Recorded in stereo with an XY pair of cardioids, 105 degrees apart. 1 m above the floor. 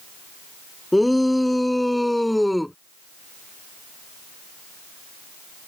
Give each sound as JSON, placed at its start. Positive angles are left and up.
{"t": 0.9, "sound": "a shout", "azimuth_deg": 5}